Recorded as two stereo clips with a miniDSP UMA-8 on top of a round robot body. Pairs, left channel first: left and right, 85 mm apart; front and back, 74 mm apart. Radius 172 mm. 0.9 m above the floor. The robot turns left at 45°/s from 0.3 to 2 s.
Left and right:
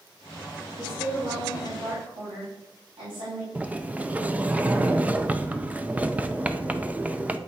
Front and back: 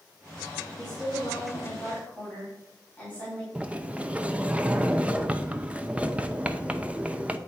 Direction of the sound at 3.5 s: 135° right.